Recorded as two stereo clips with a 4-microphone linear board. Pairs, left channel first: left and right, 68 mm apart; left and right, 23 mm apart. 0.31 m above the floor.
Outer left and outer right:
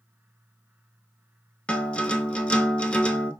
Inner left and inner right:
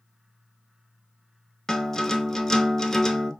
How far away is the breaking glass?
No breaking glass in this recording.